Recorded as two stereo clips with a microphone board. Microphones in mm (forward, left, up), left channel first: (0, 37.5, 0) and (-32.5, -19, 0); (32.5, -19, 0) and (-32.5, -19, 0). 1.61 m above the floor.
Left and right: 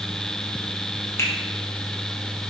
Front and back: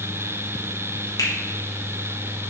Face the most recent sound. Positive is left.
turn(degrees=15)